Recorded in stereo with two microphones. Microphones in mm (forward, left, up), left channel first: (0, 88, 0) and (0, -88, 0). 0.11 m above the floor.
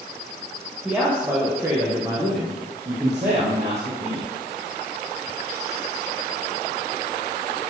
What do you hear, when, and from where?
0.8 s a man speaking: 5° right (ahead or behind), 3.5 m; by 4.2 s 45° right (ahead or behind), 4.5 m